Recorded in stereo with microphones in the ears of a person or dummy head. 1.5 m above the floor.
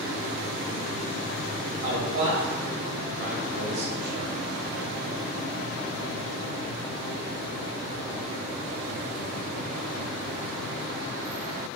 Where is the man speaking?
55° right (ahead or behind), 1.3 m.